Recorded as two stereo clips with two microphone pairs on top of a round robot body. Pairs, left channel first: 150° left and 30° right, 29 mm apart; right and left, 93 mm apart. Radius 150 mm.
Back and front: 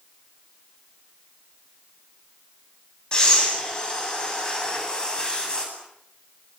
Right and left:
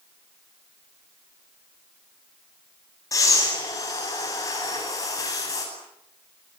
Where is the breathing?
145° right, 10 m.